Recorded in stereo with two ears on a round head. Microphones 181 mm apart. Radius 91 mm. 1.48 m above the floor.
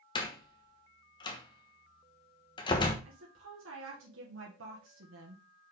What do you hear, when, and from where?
0.1 s a door slam: 25° left (ahead or behind), 1.1 m
3.0 s a woman speaking: 70° right (ahead or behind), 1.5 m